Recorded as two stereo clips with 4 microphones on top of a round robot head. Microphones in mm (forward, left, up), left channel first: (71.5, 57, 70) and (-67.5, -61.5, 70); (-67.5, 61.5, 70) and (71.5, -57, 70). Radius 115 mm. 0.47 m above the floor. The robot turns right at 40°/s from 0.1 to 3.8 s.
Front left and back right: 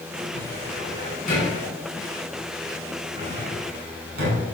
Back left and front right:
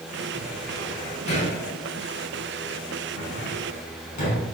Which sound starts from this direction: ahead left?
A cupboard door, at 0.3 s.